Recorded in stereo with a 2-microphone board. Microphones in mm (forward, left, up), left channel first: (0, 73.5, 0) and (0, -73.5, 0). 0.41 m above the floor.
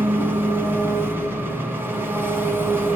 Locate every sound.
0.0 s an engine running: 15° right (ahead or behind), 2.5 m